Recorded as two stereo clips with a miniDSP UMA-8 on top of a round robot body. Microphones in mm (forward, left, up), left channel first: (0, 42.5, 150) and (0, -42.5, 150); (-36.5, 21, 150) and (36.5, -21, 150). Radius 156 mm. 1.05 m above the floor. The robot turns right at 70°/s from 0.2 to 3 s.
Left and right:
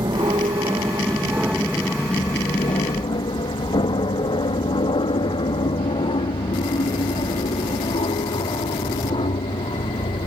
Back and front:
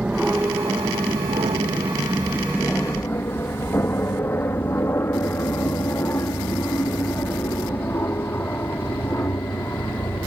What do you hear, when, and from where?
0.0 s an aircraft: 105° right; by 10.3 s 85° left